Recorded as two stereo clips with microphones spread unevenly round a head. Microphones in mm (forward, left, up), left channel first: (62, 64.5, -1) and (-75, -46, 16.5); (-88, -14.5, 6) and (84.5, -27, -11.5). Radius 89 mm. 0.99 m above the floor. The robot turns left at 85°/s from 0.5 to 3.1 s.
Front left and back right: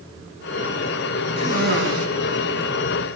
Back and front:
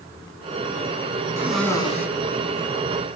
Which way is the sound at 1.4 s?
80° right.